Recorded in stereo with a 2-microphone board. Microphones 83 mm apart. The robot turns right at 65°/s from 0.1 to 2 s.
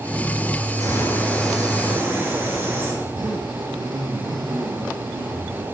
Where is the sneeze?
I don't hear a sneeze.